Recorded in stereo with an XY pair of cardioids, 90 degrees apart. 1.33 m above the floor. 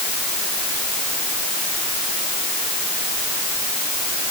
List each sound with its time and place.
Only background noise.